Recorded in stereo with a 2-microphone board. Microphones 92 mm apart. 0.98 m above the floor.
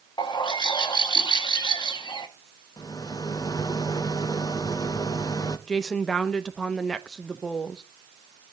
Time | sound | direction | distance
0.2 | a bird | 55° left (ahead or behind) | 1.1 m
2.8 | a rattle | 45° left (ahead or behind) | 0.8 m
5.7 | a woman speaking | 5° left (ahead or behind) | 0.8 m